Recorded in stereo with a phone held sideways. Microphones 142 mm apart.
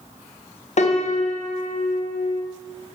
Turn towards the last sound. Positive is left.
turn(degrees=55)  # may be behind; listen again after turning